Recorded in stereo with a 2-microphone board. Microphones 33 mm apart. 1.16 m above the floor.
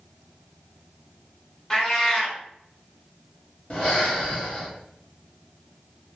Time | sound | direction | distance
1.7 | a cat meowing | 20° left (ahead or behind) | 0.8 m
3.7 | breathing | 35° left (ahead or behind) | 0.8 m